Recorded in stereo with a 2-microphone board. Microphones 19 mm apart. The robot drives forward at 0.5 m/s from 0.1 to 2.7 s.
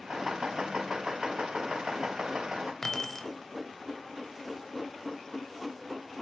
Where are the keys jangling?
20° left (ahead or behind), 0.5 m.